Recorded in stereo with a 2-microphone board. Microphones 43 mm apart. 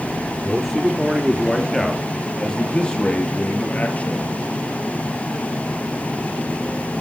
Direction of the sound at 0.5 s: 10° right (ahead or behind).